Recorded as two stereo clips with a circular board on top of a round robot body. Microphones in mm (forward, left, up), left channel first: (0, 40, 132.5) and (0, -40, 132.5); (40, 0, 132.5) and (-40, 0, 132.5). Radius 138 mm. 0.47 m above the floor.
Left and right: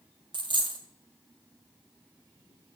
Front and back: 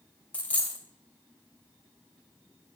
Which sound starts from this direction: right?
A dropped coin, at 0.3 s.